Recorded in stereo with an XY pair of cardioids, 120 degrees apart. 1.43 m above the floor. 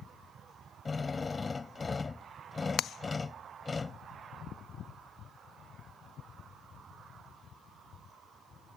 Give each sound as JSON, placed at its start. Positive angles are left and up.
{"t": 0.8, "sound": "a drill", "azimuth_deg": 20}